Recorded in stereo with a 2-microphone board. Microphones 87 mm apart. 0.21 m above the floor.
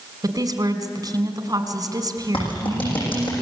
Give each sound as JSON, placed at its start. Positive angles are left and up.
{"t": 0.2, "sound": "a woman speaking", "side_deg": -45, "distance_m": 2.0}
{"t": 2.3, "sound": "a clap", "side_deg": 85, "distance_m": 9.5}